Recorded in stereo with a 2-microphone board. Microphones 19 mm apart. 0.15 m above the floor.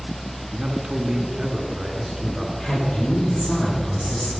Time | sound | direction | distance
0.5 | a man speaking | 30° right (ahead or behind) | 1.7 m
2.6 | a man speaking | 60° left (ahead or behind) | 5.5 m